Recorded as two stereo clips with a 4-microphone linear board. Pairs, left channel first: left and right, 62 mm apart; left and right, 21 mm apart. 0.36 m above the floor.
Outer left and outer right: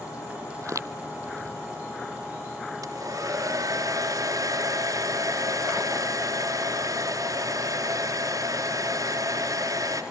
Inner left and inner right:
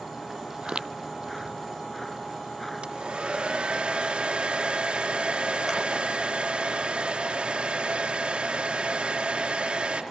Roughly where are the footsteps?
Right.